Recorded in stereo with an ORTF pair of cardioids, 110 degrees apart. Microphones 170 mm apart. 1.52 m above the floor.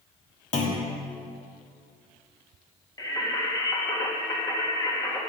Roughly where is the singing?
Ahead.